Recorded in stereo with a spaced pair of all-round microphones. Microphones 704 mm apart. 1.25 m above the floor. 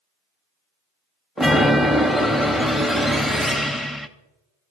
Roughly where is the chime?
Centre.